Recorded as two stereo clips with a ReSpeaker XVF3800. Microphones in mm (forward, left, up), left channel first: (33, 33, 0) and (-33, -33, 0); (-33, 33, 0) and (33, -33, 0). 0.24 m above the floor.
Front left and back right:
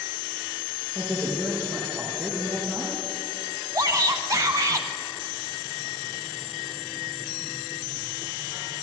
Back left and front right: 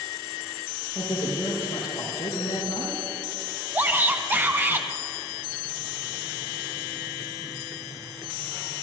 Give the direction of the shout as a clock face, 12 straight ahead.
3 o'clock.